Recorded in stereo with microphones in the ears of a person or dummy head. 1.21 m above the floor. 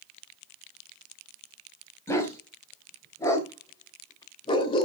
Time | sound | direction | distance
2.1 | a dog barking | 15° left (ahead or behind) | 3.5 m